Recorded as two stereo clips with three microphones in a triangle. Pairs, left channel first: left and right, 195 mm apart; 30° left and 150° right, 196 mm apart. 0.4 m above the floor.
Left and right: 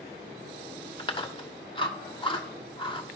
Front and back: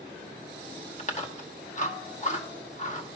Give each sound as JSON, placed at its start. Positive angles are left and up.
{"t": 1.0, "sound": "chewing", "azimuth_deg": 45, "distance_m": 1.0}